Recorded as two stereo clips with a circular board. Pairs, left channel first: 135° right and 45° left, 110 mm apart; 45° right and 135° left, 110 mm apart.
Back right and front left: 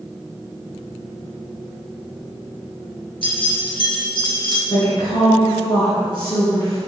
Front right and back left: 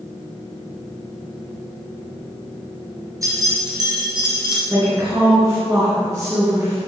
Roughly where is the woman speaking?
Behind.